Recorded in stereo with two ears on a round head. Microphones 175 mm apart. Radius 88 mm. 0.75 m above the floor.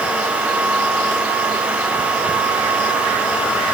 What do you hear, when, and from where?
Only background noise.